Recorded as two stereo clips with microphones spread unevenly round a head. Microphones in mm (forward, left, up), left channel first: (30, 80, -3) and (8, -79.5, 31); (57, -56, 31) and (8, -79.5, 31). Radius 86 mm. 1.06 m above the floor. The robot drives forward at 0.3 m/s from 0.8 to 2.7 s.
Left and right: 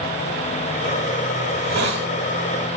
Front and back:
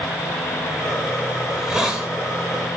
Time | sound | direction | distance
1.5 | a hiss | 75° right | 2 m